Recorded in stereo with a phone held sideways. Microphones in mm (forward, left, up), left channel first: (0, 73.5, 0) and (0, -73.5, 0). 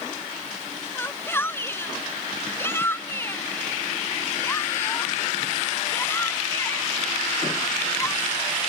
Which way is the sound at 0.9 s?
15° left (ahead or behind).